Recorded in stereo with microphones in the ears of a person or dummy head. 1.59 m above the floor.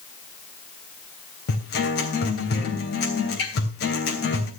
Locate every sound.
1.5 s a guitar: 60° left (ahead or behind), 3 m